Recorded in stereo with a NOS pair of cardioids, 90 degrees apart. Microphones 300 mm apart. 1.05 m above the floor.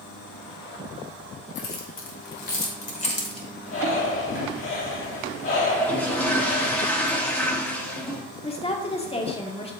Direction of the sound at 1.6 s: 50° left.